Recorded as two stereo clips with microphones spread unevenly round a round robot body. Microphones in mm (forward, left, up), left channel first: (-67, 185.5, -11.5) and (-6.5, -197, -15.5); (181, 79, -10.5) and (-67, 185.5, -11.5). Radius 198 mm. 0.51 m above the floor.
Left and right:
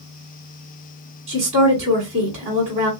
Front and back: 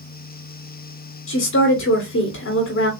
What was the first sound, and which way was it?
A woman speaking, 15° right.